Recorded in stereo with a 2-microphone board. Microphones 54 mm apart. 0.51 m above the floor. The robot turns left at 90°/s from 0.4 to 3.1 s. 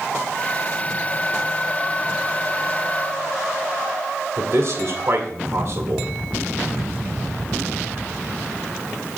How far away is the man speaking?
About 1.6 m.